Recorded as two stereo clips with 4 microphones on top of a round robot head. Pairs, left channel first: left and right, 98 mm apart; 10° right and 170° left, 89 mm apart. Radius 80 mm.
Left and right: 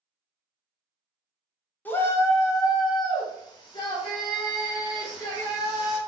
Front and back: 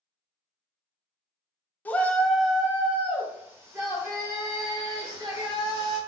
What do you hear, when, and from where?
1.9 s a shout: 40° left, 0.9 m; by 6.0 s 130° left, 2.5 m